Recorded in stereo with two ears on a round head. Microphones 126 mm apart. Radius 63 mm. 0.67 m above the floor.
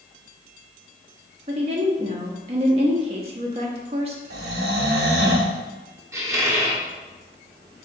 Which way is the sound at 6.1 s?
20° right (ahead or behind).